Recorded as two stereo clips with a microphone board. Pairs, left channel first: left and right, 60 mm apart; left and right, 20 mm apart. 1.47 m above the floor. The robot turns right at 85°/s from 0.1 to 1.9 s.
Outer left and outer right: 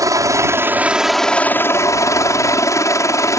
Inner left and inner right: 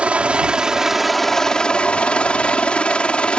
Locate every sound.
0.0 s a helicopter: 85° right; by 3.4 s 65° left